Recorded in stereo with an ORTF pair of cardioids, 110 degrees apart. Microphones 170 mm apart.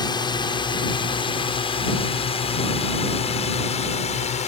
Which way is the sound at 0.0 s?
25° left.